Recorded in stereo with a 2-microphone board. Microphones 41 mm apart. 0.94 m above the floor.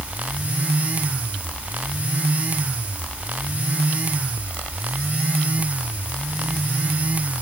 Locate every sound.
Only background noise.